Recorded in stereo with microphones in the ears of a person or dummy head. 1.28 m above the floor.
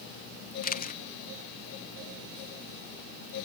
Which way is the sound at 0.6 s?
45° left (ahead or behind).